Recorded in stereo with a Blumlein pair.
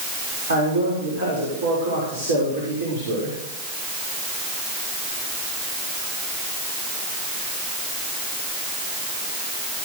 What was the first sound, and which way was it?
A man speaking, 65° right.